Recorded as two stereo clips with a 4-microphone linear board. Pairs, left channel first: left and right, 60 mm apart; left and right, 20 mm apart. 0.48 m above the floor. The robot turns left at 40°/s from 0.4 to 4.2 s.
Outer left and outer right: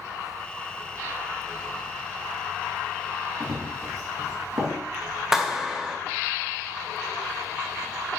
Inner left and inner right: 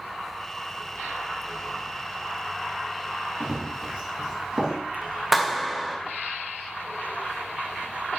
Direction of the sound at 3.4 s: 75° right (ahead or behind).